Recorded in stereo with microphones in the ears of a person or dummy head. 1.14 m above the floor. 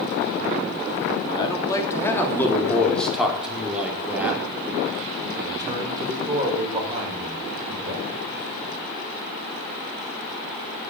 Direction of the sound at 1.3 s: 20° left (ahead or behind).